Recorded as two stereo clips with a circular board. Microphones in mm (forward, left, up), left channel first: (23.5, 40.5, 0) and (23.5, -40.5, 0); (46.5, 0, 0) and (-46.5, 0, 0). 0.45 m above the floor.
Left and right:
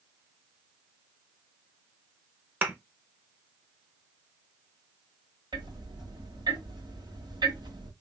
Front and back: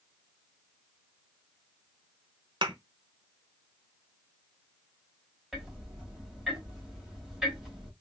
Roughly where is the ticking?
Right.